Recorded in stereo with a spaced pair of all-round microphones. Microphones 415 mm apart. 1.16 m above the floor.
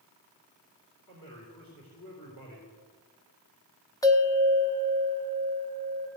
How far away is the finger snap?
I don't hear a finger snap.